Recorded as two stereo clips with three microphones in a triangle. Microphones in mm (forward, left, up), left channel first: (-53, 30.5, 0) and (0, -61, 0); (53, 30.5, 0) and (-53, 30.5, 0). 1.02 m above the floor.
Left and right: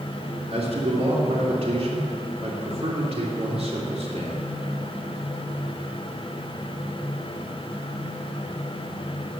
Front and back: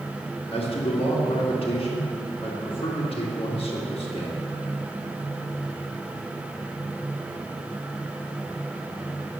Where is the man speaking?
30° right, 2.5 m.